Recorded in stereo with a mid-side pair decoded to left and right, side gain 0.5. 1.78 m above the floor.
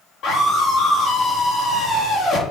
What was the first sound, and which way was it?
A scream, 70° left.